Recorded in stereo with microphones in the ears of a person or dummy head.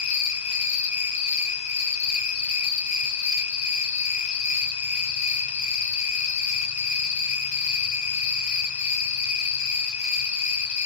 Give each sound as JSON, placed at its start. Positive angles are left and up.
{"t": 0.0, "sound": "an insect", "side_deg": 40, "distance_m": 1.1}